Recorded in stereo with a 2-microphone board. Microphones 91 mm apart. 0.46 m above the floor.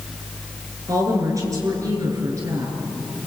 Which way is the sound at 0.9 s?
40° right (ahead or behind).